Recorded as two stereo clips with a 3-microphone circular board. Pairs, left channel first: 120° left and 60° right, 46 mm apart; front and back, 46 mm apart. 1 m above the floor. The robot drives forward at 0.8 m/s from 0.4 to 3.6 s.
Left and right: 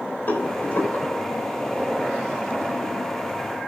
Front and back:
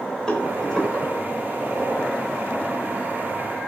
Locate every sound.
0.3 s a rattle: 80° left, 3.5 m; by 1.0 s 90° left, 3.5 m